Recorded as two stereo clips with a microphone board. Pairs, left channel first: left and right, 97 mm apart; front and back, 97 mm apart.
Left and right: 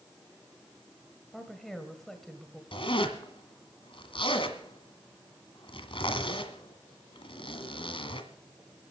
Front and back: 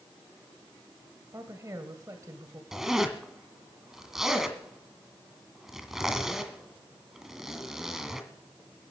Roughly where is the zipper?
Left.